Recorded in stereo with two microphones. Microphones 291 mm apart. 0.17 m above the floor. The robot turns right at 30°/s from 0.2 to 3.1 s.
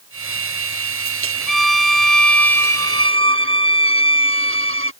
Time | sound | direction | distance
1.5 | a violin | 95° right | ?